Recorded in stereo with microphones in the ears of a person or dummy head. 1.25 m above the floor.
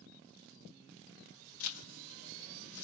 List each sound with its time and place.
1.6 s a zipper: 80° left, 0.8 m